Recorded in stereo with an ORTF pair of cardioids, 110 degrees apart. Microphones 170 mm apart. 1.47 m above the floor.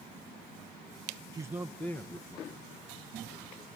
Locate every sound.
1.3 s a man speaking: 25° right, 0.6 m; by 3.6 s 30° left, 3 m